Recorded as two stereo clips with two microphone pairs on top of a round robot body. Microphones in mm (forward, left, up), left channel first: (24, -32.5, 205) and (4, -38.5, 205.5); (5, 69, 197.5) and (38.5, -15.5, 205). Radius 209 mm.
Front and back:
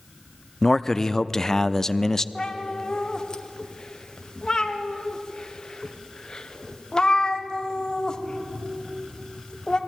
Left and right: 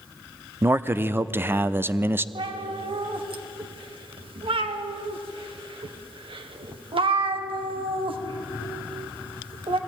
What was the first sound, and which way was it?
A man speaking, 20° right.